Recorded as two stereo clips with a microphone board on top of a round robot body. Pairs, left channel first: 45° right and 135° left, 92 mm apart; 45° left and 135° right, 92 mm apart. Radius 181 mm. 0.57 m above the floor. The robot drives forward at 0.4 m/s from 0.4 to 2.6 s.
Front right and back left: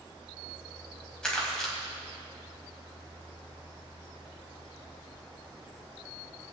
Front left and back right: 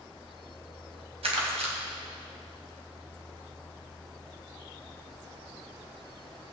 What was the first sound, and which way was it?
Crumpling, 130° right.